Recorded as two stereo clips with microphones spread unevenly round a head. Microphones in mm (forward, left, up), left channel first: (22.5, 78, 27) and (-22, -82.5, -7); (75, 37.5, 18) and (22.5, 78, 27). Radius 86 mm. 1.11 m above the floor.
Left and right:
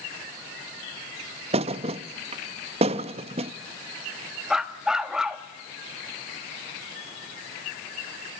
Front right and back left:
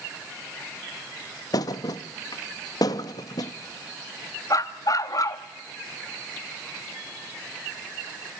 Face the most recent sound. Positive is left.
turn(degrees=-10)